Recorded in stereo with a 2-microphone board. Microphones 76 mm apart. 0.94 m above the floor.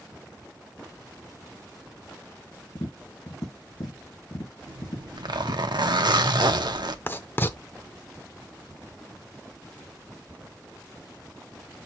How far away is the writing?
About 0.6 m.